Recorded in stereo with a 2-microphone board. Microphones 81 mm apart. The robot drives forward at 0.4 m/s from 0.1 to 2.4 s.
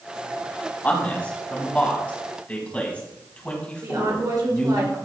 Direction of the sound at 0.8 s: 20° left (ahead or behind).